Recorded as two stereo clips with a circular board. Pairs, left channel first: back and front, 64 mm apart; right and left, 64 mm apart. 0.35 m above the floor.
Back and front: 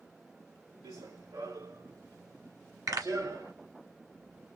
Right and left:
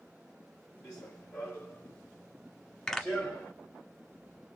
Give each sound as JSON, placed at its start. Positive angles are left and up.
{"t": 0.8, "sound": "running footsteps", "azimuth_deg": -15, "distance_m": 2.0}
{"t": 2.9, "sound": "a pop", "azimuth_deg": -10, "distance_m": 1.7}